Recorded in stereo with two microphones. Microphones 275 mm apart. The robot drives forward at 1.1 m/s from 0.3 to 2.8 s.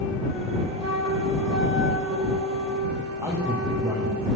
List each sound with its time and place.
0.8 s a flute: 65° right (ahead or behind), 3 m; by 4.2 s 60° right (ahead or behind), 3 m
3.2 s a man speaking: 10° right (ahead or behind), 9.5 m